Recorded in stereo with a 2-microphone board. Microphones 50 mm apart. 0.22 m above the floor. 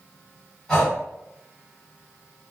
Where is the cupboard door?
I don't hear a cupboard door.